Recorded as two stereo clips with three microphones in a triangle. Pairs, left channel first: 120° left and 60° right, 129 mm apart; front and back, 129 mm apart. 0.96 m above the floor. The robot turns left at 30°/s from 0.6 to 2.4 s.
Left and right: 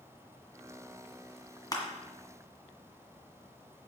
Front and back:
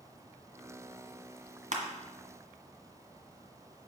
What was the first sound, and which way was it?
Crushing, 175° left.